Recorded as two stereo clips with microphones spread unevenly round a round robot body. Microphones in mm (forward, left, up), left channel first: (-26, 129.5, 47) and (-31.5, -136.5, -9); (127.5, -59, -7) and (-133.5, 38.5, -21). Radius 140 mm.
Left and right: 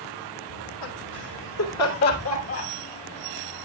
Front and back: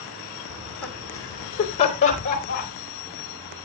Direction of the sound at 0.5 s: 75° left.